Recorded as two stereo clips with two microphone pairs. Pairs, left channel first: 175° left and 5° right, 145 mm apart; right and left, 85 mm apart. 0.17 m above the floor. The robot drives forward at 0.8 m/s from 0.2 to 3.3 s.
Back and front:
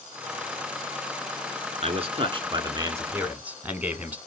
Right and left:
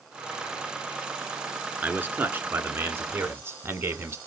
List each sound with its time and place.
1.8 s a man speaking: 25° left, 2 m; by 4.2 s 65° left, 1.4 m